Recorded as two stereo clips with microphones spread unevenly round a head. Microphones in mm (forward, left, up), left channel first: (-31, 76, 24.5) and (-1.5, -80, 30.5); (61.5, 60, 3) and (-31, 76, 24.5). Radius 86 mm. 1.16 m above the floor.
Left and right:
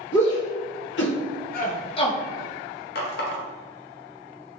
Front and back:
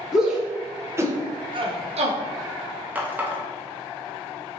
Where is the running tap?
110° left, 0.6 m.